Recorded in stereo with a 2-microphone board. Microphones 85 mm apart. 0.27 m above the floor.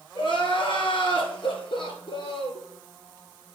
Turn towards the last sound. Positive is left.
turn(degrees=75)  # may be behind; listen again after turning